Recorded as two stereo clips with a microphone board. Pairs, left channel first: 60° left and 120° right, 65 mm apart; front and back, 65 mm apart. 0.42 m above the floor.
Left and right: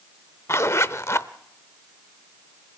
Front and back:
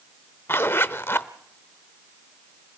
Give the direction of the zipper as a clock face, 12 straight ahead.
11 o'clock.